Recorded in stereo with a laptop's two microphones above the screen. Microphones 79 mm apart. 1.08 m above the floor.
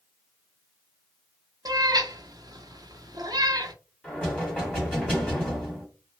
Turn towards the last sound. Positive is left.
turn(degrees=15)  # may be behind; listen again after turning